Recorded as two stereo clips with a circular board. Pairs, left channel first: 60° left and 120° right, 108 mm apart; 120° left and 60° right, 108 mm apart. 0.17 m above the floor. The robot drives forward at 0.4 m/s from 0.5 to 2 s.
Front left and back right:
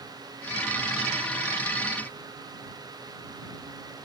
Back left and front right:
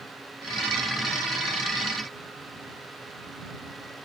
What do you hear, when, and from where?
Only background noise.